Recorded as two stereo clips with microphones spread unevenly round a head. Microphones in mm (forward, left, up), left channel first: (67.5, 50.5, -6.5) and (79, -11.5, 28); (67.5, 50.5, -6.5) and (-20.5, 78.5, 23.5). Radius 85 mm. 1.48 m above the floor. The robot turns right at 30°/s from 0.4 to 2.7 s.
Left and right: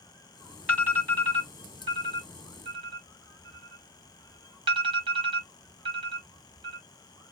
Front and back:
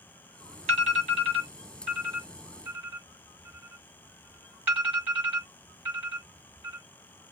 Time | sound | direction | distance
0.7 | an alarm | 170° right | 1.4 m